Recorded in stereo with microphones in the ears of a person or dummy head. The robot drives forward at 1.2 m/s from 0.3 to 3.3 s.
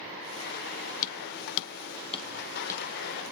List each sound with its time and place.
1.0 s hammering: 40° left (ahead or behind), 0.8 m; by 2.9 s 15° left (ahead or behind), 1.7 m